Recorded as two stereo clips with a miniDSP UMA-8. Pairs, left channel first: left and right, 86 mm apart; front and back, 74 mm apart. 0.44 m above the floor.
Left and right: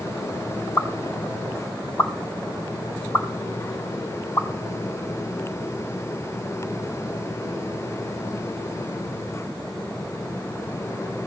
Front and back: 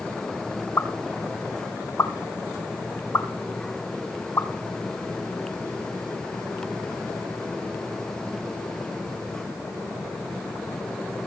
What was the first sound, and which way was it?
A pop, 45° left.